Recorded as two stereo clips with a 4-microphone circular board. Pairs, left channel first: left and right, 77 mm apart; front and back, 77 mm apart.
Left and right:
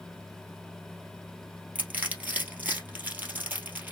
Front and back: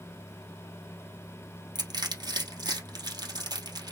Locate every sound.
1.8 s crushing: 160° right, 2 m